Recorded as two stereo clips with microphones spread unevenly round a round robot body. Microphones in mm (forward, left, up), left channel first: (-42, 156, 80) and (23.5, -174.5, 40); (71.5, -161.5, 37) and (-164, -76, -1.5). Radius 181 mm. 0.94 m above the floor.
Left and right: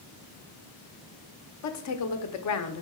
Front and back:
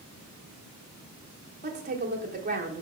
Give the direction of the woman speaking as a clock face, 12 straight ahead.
8 o'clock.